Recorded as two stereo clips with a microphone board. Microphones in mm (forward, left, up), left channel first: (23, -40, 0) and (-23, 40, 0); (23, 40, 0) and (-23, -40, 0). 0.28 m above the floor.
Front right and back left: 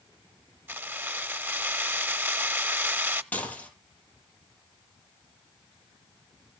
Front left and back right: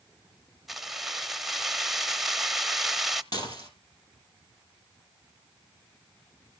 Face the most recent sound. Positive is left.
turn(degrees=15)